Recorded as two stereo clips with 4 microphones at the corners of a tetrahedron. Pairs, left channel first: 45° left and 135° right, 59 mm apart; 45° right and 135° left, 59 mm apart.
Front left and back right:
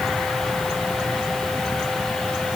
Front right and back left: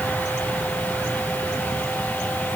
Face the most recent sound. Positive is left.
No sound to turn to.